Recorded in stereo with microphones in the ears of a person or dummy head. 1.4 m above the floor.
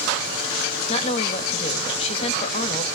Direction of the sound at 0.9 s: 35° left (ahead or behind).